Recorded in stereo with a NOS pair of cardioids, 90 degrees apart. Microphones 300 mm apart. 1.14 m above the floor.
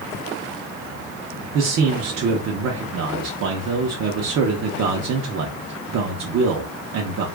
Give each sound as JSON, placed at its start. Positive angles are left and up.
{"t": 1.5, "sound": "a man speaking", "azimuth_deg": -55, "distance_m": 0.8}